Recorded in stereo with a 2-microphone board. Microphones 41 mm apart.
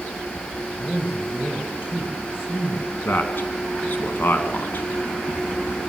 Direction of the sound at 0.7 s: 20° right (ahead or behind).